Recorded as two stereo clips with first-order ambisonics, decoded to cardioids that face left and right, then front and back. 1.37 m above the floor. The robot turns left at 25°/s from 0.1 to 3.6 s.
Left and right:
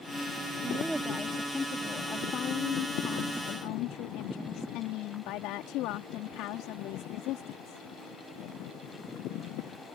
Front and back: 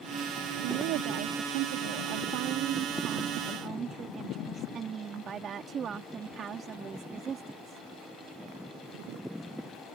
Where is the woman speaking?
165° right; by 7.8 s 120° left.